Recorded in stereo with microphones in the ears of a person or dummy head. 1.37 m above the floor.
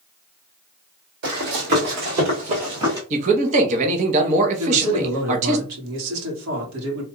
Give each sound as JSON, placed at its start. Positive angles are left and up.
{"t": 1.2, "sound": "running footsteps", "side_deg": -60, "distance_m": 3.0}
{"t": 3.1, "sound": "a man speaking", "side_deg": -40, "distance_m": 1.1}
{"t": 4.6, "sound": "a man speaking", "side_deg": -80, "distance_m": 2.0}